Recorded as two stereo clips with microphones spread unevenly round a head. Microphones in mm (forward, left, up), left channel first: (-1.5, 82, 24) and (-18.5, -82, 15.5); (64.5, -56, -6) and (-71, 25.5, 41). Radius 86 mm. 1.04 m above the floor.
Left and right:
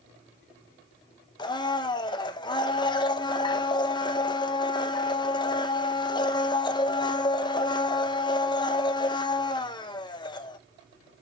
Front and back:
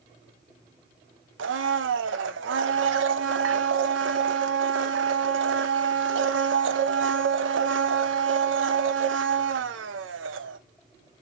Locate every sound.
1.4 s a blender: 145° left, 0.7 m